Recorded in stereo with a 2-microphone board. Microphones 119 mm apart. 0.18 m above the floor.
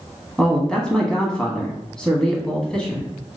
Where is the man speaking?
5° left (ahead or behind), 1.1 m.